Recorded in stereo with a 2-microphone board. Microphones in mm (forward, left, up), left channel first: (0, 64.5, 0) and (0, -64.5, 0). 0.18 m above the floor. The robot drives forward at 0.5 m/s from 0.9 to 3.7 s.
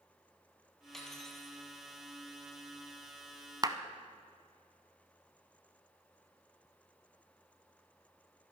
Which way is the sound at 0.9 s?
5° left (ahead or behind).